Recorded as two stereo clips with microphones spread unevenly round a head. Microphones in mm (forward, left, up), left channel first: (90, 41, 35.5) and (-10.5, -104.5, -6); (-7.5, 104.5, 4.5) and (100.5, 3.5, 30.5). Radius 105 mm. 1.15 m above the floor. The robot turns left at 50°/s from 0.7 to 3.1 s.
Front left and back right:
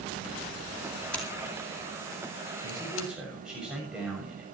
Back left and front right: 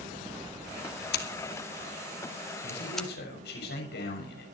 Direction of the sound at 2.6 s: 175° left.